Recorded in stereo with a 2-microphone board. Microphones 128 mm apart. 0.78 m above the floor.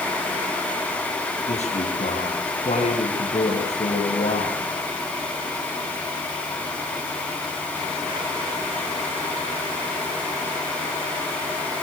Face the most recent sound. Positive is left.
turn(degrees=60)  # may be behind; listen again after turning